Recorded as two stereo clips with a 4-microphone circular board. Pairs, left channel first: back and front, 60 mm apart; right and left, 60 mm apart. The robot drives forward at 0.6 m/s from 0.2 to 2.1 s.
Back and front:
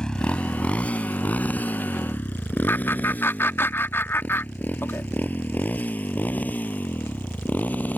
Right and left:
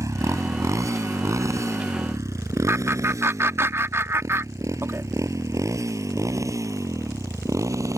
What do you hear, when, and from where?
0.0 s a motorcycle: 105° left; by 8.0 s 120° left
2.7 s laughter: 130° left